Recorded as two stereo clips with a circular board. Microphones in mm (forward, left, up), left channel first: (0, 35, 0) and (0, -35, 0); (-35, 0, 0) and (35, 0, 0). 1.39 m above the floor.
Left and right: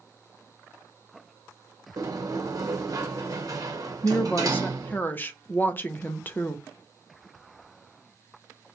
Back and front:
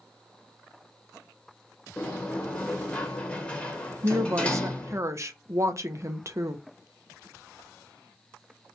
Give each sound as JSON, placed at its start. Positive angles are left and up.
{"t": 2.0, "sound": "a sliding door", "azimuth_deg": -110, "distance_m": 0.7}
{"t": 4.0, "sound": "a woman speaking", "azimuth_deg": 35, "distance_m": 0.5}